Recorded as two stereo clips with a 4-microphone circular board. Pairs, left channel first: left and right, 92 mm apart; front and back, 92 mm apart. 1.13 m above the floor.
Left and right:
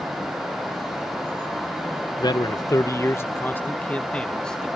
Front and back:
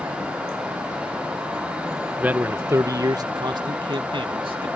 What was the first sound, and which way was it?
A man speaking, 110° left.